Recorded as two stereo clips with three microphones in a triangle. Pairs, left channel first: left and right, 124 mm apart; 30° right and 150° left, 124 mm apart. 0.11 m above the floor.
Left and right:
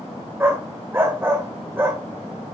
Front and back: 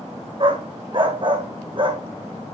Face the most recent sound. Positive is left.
turn(degrees=-160)